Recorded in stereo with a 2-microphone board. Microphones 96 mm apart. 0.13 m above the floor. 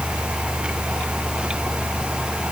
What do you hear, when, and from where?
Only background noise.